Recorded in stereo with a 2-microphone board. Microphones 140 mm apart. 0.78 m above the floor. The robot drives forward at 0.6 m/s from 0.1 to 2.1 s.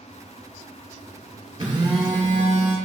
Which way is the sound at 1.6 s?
35° right (ahead or behind).